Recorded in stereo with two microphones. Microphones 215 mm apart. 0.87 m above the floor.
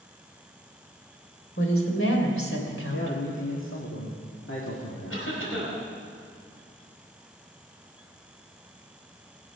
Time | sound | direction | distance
1.6 | a woman speaking | 80° left | 3 m
2.9 | a man speaking | 70° left (ahead or behind) | 2 m
5.1 | a cough | 80° left | 4.5 m